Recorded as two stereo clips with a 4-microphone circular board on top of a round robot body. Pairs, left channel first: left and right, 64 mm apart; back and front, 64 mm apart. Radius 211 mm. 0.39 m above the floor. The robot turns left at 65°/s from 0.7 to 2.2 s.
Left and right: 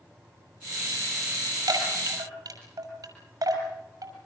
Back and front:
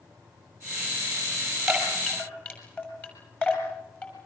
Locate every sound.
1.7 s a chime: 85° right, 6.5 m; by 4.1 s 120° right, 6.5 m